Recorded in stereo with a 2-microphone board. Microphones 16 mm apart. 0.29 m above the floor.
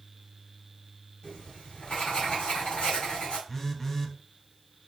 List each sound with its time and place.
1.2 s writing: 65° left (ahead or behind), 3.5 m
3.5 s a phone buzzing: 20° left (ahead or behind), 0.8 m